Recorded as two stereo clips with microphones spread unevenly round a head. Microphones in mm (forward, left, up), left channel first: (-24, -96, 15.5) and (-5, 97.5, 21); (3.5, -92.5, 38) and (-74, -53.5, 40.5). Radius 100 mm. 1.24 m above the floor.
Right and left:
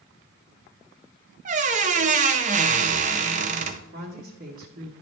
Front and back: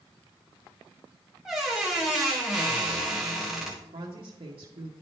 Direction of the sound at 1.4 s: 70° left.